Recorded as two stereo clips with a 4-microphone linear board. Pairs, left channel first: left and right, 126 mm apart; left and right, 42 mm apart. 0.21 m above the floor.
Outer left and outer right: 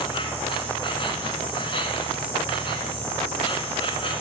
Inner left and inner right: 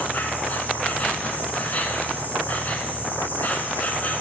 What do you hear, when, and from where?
0.0 s an insect: 45° left (ahead or behind), 1.5 m